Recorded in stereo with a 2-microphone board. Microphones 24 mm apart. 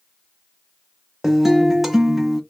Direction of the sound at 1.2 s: 10° right (ahead or behind).